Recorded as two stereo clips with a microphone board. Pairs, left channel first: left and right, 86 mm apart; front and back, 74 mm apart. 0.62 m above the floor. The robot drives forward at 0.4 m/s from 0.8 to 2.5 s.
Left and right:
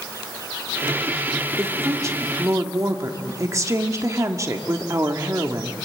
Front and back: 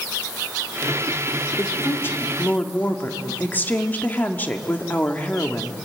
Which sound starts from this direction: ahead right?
A woman speaking, at 1.6 s.